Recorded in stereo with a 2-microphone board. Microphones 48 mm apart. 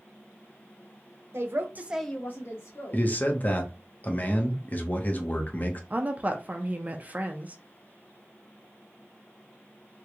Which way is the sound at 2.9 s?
35° left (ahead or behind).